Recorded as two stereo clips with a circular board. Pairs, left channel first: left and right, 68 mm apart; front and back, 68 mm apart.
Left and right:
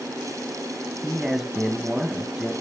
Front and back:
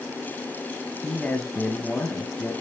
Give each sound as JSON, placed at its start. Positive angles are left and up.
{"t": 1.0, "sound": "a man speaking", "azimuth_deg": -10, "distance_m": 1.4}